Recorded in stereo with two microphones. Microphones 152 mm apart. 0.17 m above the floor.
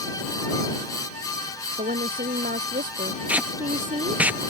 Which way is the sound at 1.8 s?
80° right.